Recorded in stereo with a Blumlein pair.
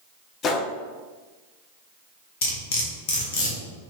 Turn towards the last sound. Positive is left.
turn(degrees=50)